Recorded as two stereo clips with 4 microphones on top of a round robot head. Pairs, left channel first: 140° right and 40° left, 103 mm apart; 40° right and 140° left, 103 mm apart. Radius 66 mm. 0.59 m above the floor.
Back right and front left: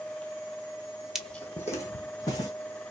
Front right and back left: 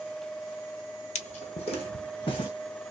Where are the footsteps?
45° right, 0.8 m; by 2.5 s 85° right, 2.5 m.